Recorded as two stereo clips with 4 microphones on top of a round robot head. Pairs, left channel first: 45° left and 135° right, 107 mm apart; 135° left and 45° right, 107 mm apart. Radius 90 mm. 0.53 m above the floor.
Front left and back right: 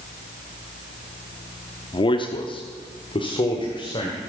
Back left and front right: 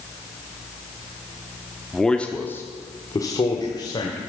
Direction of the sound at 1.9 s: 45° left.